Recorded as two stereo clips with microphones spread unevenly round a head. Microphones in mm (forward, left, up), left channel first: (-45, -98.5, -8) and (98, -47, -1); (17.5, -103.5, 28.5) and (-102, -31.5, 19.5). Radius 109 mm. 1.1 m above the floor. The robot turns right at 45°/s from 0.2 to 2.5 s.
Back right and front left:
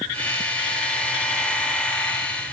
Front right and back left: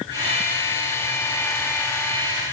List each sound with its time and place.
Only background noise.